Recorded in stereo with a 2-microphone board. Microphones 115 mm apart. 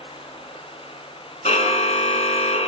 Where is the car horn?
85° left, 3.5 m.